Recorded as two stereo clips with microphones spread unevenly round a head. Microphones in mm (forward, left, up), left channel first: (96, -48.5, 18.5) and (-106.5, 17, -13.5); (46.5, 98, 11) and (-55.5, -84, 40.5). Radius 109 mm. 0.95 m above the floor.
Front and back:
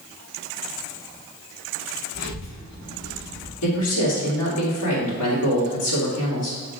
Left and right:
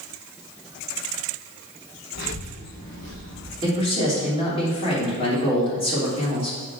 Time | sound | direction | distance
2.1 | a child speaking | 20° left | 3 m
3.6 | a man speaking | straight ahead | 3 m